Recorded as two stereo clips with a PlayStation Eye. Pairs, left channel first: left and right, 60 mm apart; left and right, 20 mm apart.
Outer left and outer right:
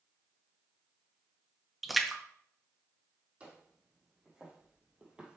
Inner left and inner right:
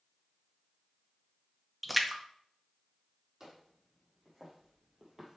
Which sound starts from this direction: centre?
A splash, at 1.8 s.